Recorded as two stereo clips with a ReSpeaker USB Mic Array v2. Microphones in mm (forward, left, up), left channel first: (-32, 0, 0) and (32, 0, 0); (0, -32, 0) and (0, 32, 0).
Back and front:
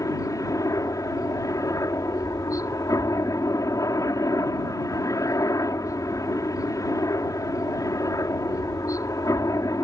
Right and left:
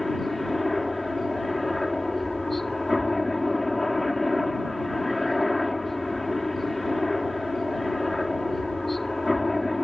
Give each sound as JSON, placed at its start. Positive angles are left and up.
{"t": 0.0, "sound": "a helicopter", "azimuth_deg": -175}